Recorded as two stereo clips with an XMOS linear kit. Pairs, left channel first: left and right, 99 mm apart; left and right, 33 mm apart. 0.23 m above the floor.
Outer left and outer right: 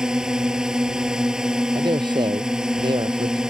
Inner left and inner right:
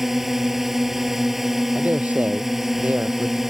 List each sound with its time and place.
0.0 s a drone: 5° right (ahead or behind)
1.8 s a man speaking: 50° right (ahead or behind)